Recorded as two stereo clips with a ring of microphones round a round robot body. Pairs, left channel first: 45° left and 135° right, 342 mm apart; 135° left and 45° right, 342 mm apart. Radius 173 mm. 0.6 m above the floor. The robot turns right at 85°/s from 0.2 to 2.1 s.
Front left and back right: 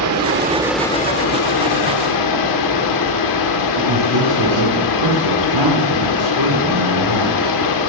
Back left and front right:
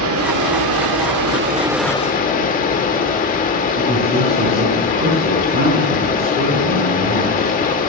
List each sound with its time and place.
0.0 s running water: 90° right, 1.4 m; by 7.9 s 70° left, 1.4 m
3.8 s a man speaking: 110° right, 4.5 m